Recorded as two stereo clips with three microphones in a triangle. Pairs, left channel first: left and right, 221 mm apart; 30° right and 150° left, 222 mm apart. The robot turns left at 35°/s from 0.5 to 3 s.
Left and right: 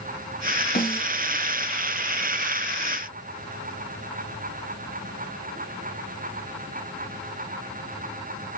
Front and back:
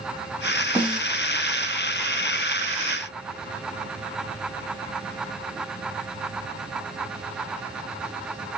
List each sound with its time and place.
0.8 s a snare drum: 70° left, 1.5 m; by 1.1 s 60° left, 1.5 m